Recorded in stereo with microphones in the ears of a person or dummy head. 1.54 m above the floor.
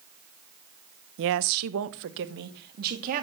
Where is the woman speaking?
55° right (ahead or behind), 1.0 m; by 3.2 s 45° right (ahead or behind), 3 m.